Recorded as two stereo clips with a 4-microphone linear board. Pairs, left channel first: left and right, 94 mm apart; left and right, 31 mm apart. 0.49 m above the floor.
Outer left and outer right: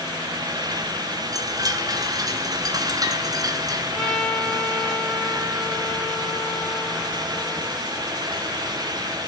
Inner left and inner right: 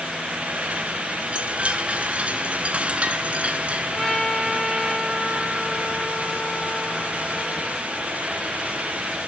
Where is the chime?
40° right (ahead or behind), 2.5 m.